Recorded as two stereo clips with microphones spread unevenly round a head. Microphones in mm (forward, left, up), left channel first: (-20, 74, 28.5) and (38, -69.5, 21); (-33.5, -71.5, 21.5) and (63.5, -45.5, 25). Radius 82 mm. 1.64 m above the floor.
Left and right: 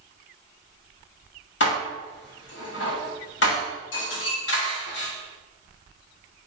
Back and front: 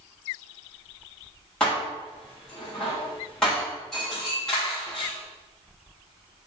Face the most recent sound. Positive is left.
turn(degrees=110)